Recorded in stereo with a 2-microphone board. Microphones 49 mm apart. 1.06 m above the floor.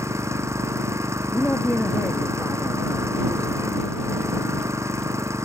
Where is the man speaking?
40° left (ahead or behind).